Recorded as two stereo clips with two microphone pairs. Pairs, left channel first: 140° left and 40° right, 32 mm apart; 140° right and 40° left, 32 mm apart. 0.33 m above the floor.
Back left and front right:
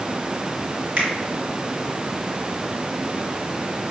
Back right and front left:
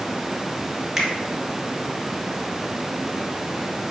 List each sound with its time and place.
1.0 s a finger snap: 40° right, 1.4 m